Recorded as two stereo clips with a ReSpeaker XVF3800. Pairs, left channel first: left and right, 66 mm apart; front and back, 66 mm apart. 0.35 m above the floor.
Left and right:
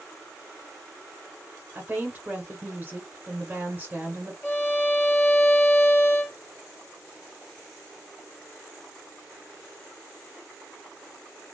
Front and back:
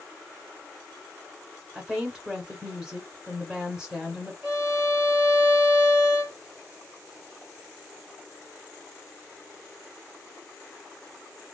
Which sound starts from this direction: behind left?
A violin, at 4.4 s.